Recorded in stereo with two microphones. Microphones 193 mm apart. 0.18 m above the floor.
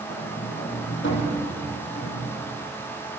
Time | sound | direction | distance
0.1 | a sliding door | 80° left | 6 m